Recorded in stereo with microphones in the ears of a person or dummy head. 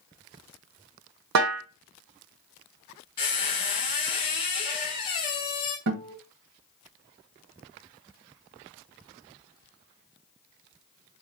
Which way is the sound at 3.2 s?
30° left (ahead or behind).